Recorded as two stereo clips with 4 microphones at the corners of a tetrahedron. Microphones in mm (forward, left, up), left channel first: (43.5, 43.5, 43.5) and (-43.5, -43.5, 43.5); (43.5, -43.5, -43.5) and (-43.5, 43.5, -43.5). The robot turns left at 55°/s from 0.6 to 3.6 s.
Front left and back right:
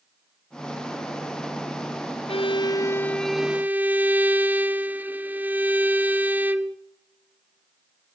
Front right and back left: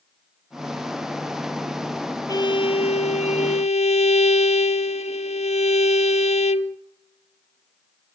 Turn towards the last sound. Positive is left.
turn(degrees=-60)